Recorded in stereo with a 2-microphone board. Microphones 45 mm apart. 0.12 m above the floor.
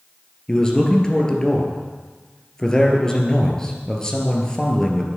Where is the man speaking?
15° left (ahead or behind), 2 m.